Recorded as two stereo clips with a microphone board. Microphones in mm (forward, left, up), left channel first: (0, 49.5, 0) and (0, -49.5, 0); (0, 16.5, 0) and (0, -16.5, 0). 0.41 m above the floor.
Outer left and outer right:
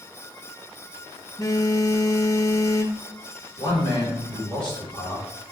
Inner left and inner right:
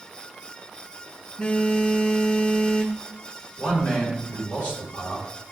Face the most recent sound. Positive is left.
turn(degrees=60)  # may be behind; listen again after turning